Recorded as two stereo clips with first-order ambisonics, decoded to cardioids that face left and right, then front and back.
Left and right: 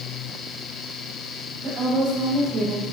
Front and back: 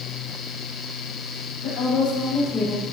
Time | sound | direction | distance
1.6 | a woman speaking | 40° right | 3.5 m